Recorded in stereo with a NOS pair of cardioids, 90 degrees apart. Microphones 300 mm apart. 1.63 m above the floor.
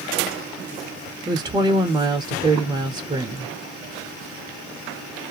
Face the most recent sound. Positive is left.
turn(degrees=-15)